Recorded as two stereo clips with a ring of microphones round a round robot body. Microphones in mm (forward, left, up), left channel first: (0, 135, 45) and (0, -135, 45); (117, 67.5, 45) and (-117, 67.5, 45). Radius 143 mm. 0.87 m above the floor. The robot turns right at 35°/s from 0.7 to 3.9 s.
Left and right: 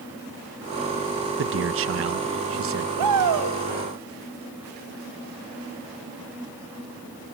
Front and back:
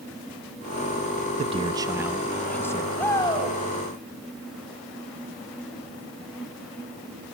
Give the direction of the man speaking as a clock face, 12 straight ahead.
4 o'clock.